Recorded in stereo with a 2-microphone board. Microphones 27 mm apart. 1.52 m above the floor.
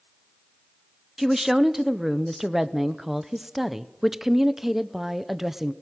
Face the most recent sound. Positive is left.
turn(degrees=-10)  # may be behind; listen again after turning